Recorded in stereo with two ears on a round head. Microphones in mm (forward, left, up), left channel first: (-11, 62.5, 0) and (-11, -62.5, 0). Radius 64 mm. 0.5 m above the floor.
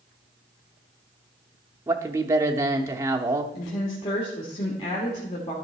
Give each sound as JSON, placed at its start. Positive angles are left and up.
{"t": 1.9, "sound": "a man speaking", "side_deg": -20, "distance_m": 0.7}
{"t": 3.5, "sound": "a woman speaking", "side_deg": 45, "distance_m": 1.6}